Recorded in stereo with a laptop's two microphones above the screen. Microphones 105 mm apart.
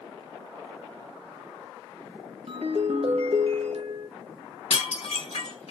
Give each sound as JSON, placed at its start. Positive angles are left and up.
{"t": 2.5, "sound": "a ringtone", "side_deg": -65, "distance_m": 0.6}
{"t": 4.7, "sound": "dishes clattering", "side_deg": 80, "distance_m": 1.4}